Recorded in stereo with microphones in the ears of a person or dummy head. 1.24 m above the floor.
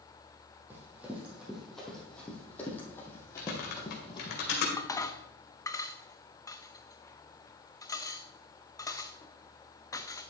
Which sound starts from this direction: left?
Typing on a keyboard, at 3.4 s.